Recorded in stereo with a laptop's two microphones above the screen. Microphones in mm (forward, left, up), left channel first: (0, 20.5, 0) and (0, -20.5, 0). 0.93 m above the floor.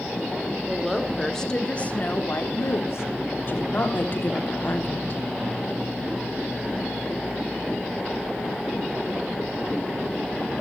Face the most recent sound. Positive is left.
turn(degrees=50)  # may be behind; listen again after turning